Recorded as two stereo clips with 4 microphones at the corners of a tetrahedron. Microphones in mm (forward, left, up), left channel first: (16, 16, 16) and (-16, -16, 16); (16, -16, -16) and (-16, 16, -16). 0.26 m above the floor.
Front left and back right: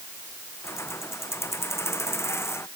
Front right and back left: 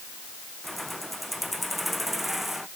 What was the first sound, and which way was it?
Keys jangling, 45° left.